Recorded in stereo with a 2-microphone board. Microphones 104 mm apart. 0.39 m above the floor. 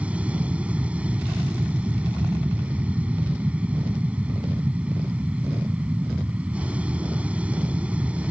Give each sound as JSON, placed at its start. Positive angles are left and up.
{"t": 0.0, "sound": "an aircraft", "side_deg": -10}